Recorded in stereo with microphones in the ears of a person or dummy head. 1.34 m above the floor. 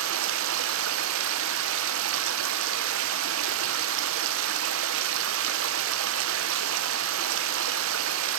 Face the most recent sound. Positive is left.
turn(degrees=-75)  # may be behind; listen again after turning